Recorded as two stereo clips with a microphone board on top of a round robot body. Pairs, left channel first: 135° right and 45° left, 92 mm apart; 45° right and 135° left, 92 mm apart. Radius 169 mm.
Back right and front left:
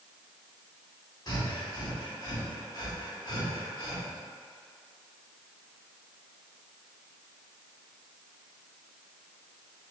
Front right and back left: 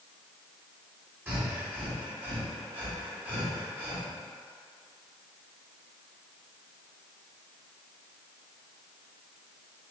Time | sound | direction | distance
1.3 | breathing | 160° right | 1.7 m